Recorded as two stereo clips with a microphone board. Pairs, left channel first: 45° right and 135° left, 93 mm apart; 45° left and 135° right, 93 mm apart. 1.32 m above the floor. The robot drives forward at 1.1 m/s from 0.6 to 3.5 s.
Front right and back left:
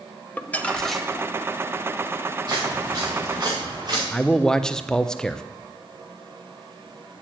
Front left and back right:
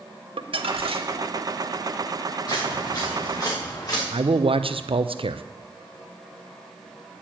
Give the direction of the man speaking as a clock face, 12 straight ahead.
4 o'clock.